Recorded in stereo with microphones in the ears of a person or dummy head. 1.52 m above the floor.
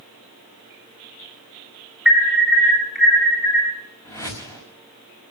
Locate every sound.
2.0 s an alarm: centre (ahead or behind), 5 m
4.0 s a whoosh: 15° left (ahead or behind), 5.5 m